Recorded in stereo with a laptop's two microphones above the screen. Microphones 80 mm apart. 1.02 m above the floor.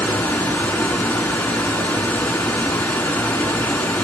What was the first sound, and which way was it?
Running water, 20° left (ahead or behind).